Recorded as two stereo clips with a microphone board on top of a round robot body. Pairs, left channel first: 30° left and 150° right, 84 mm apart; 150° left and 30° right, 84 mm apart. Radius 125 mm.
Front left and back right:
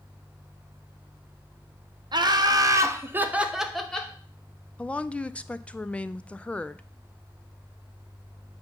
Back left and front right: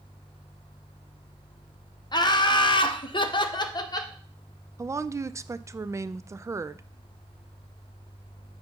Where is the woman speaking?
35° right, 0.5 m.